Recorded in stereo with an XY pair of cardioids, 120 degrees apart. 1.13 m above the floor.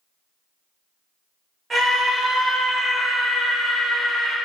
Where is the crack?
No crack in this recording.